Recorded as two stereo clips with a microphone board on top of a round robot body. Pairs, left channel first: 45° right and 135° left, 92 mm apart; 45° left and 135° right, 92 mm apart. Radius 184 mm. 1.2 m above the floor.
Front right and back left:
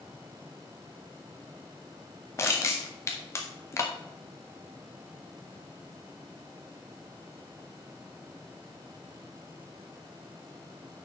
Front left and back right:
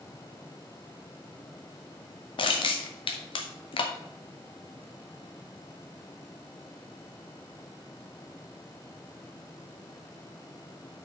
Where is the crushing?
15° left, 0.7 m.